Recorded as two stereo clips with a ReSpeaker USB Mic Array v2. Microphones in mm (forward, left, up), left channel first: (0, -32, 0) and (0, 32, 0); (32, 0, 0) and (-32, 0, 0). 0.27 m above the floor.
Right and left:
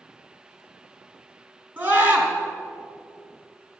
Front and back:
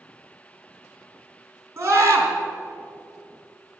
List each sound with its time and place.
1.8 s a scream: 135° left, 3 m